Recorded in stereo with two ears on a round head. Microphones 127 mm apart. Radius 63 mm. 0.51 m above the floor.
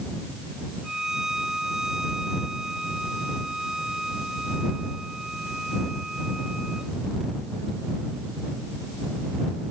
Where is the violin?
5° right (ahead or behind).